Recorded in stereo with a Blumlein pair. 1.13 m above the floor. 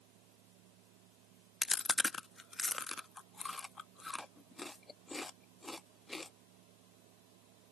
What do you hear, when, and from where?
0.0 s a fan: 45° right
1.6 s chewing: 15° left